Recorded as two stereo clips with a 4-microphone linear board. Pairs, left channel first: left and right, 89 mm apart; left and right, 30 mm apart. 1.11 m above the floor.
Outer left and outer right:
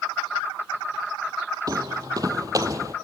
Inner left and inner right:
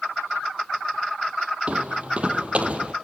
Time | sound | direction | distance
1.7 | footsteps | 40° right (ahead or behind) | 1.6 m